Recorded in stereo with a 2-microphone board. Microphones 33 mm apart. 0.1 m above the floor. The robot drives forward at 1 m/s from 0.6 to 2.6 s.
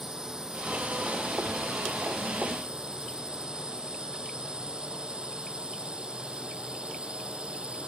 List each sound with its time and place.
0.0 s a drone: 15° right (ahead or behind); by 7.9 s 30° right (ahead or behind)